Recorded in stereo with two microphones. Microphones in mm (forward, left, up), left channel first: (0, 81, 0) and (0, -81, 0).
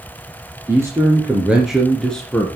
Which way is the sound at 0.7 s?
15° right (ahead or behind).